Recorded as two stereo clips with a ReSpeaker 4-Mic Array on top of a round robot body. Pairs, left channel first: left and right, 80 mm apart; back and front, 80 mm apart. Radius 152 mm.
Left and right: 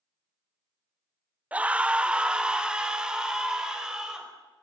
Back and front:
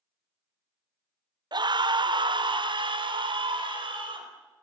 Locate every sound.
1.5 s a scream: 20° right, 1.2 m; by 4.3 s 10° right, 5 m